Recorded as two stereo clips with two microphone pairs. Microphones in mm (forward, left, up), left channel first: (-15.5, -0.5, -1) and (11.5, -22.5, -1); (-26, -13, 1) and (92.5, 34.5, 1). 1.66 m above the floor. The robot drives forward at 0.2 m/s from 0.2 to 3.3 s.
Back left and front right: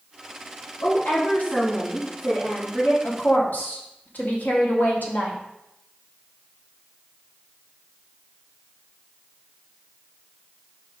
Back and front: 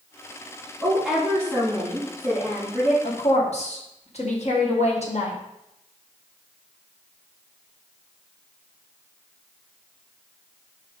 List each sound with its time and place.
0.8 s a woman speaking: 110° left, 3.5 m; by 2.9 s 115° left, 4 m
3.0 s a woman speaking: 170° left, 1.6 m